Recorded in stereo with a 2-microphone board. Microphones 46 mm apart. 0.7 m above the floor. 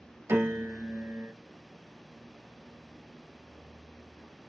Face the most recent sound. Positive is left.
turn(degrees=-75)  # may be behind; listen again after turning